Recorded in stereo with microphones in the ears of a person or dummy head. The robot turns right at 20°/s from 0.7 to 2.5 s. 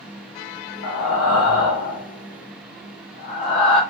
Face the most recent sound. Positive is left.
turn(degrees=40)  # may be behind; listen again after turning